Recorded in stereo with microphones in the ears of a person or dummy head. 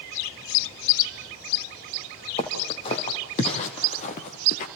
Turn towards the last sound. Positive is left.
turn(degrees=40)  # may be behind; listen again after turning